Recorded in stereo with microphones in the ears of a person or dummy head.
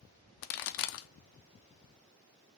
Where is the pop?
65° left (ahead or behind), 0.7 m.